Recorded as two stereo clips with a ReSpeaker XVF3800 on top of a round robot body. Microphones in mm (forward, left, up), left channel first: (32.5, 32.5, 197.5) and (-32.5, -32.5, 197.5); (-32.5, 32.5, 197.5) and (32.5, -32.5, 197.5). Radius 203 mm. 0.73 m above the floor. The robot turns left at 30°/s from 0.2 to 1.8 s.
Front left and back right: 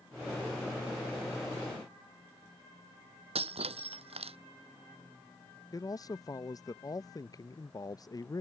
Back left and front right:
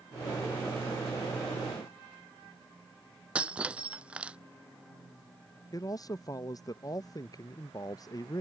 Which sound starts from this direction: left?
A man speaking, at 5.7 s.